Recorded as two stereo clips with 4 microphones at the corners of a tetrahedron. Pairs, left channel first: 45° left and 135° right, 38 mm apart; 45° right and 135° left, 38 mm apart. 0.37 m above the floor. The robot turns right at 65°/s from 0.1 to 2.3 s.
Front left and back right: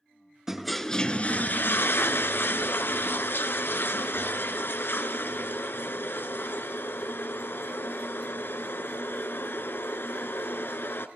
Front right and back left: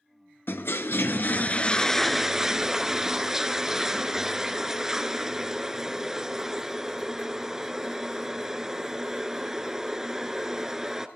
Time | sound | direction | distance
0.5 | a toilet flushing | 60° right | 0.7 m